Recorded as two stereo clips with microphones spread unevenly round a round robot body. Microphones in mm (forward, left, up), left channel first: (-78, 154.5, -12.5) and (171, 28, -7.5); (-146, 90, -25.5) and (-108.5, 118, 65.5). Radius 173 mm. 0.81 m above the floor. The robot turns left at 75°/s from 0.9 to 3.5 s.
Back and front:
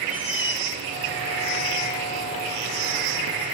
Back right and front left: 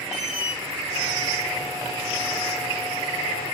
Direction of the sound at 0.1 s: 160° left.